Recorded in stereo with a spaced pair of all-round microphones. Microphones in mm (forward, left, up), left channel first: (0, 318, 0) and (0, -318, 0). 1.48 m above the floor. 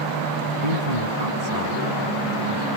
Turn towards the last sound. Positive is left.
turn(degrees=-75)  # may be behind; listen again after turning